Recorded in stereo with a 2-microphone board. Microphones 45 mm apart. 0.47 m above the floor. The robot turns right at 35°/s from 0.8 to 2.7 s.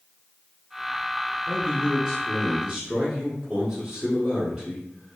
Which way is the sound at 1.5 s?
175° left.